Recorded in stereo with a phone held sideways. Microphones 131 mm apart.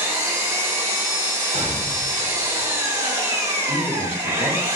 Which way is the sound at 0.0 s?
20° right (ahead or behind).